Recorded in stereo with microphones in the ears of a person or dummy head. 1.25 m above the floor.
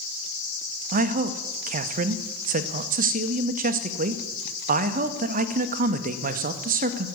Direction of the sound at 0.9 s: 40° right (ahead or behind).